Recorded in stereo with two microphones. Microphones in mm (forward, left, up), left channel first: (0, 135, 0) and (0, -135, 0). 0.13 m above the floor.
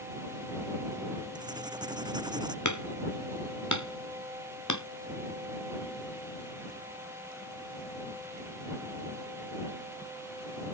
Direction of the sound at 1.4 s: 15° right (ahead or behind).